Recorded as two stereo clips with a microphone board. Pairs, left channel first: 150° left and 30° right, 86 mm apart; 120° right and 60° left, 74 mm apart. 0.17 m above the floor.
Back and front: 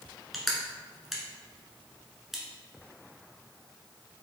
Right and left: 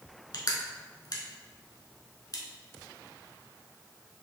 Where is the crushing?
120° right, 0.8 m.